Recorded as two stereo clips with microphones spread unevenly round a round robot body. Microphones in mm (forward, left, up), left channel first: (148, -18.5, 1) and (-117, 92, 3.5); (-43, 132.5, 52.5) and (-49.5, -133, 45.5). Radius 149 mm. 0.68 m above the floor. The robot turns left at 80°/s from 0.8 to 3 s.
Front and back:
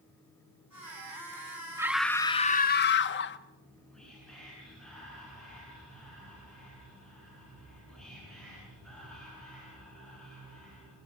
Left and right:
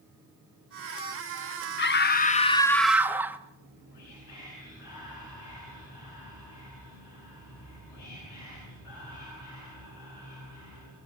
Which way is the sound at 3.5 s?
65° left.